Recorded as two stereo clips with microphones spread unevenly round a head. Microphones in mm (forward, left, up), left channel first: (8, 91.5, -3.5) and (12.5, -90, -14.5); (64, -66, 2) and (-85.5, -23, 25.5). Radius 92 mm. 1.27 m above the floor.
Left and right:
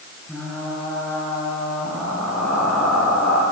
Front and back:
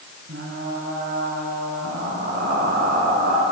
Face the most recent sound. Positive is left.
turn(degrees=180)